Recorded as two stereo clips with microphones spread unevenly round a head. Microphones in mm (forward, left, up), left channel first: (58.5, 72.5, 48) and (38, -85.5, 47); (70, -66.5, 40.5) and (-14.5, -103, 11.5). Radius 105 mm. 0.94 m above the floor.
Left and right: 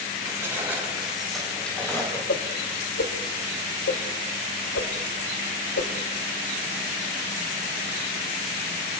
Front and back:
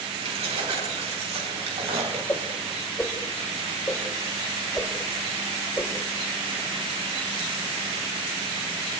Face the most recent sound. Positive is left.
turn(degrees=95)